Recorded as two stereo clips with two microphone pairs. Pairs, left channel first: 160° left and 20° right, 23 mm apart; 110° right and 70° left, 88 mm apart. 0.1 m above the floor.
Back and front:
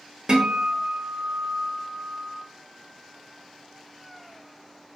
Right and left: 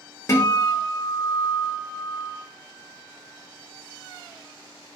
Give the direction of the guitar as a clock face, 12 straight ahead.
2 o'clock.